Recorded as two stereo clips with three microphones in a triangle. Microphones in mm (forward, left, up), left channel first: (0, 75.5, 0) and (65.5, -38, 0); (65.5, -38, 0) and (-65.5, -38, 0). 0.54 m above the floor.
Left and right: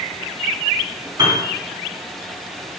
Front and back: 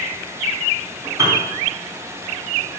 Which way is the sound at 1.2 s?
120° right.